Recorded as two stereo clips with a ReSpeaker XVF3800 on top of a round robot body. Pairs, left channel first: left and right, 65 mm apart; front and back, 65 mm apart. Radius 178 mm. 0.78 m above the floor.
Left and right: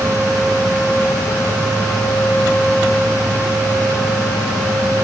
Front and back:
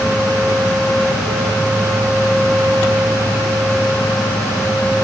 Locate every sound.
Only background noise.